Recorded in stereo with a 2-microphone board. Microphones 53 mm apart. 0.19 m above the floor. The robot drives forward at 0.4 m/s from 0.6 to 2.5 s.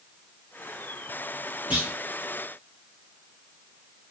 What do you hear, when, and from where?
1.7 s a clunk: 25° right (ahead or behind), 1.6 m